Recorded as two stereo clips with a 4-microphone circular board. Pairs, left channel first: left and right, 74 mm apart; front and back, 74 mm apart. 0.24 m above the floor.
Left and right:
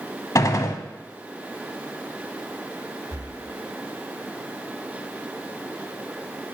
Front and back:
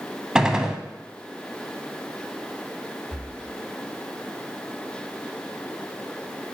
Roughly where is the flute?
No flute in this recording.